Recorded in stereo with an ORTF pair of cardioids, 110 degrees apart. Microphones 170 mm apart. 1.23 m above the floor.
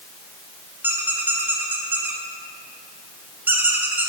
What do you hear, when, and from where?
0.8 s a squeak: 10° right, 0.9 m